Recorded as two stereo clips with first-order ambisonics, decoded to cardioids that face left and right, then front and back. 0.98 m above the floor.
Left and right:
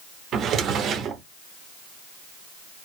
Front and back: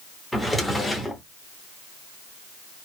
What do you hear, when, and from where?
0.3 s a drawer: 85° right, 0.7 m